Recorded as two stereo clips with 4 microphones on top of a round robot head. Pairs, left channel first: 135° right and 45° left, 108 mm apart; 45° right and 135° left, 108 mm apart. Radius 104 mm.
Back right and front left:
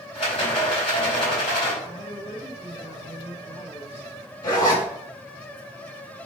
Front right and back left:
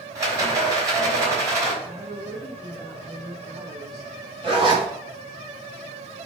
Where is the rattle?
170° right, 4 m.